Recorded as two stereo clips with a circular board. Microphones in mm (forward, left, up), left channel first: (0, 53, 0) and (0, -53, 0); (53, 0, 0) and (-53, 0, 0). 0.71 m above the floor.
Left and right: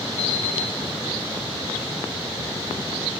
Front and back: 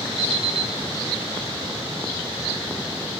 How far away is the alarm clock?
About 4 m.